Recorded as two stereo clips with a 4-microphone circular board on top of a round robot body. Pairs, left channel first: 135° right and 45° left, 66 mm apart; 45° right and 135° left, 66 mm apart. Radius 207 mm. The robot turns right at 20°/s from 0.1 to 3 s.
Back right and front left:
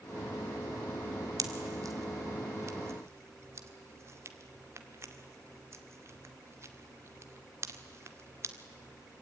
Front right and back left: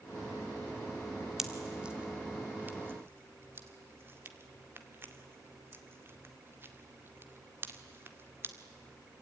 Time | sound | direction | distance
1.4 | a pop | 50° left | 2 m